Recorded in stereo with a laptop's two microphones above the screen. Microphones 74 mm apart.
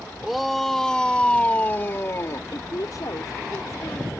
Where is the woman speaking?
55° left (ahead or behind).